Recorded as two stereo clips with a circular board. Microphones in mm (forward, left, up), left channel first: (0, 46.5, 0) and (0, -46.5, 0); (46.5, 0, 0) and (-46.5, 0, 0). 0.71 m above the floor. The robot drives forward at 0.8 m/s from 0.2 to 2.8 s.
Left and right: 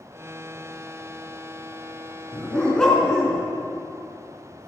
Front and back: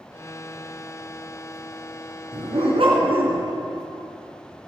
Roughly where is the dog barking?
Behind.